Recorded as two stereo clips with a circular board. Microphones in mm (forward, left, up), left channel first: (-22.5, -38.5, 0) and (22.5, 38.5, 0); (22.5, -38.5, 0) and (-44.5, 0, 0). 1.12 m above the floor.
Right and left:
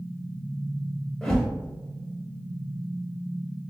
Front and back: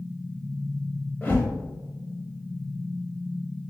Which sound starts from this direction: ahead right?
A whoosh, at 1.2 s.